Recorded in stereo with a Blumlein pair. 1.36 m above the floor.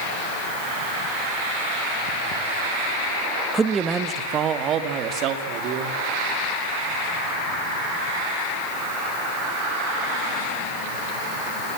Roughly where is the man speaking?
Ahead.